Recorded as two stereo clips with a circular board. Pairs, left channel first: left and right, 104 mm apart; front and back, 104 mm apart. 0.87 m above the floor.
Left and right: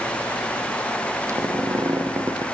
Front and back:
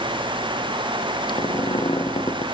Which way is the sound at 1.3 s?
30° right.